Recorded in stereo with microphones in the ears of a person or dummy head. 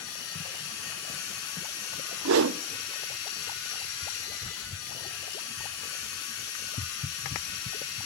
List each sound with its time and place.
0.0 s a machine running: 75° left (ahead or behind), 6.5 m
2.2 s a whoosh: 75° right (ahead or behind), 0.8 m